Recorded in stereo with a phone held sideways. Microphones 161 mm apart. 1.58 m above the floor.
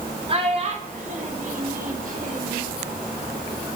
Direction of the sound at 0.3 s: 35° right (ahead or behind).